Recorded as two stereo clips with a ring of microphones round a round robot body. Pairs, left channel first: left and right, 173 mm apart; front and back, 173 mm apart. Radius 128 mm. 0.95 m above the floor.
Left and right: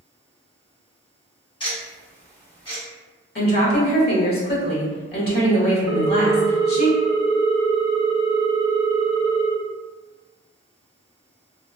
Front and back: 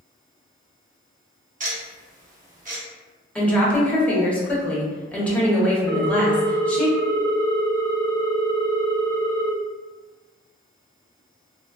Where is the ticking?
150° left, 1.1 m.